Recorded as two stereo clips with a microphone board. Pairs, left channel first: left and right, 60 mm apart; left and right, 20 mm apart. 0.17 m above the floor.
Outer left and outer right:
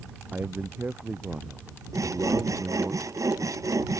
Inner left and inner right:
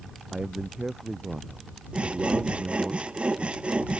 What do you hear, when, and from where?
0.3 s a man speaking: 30° right (ahead or behind)
1.9 s sawing: 65° right (ahead or behind)